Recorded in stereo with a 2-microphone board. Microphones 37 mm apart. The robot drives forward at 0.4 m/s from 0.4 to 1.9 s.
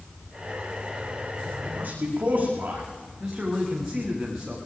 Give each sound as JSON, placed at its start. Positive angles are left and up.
{"t": 1.6, "sound": "a man speaking", "side_deg": -45, "distance_m": 9.0}
{"t": 3.2, "sound": "a man speaking", "side_deg": -10, "distance_m": 9.5}